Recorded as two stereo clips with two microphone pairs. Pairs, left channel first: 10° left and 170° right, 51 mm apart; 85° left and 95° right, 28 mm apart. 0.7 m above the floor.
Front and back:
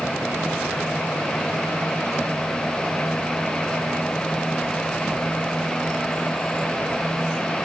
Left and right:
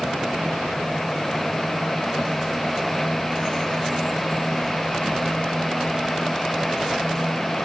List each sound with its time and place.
Only background noise.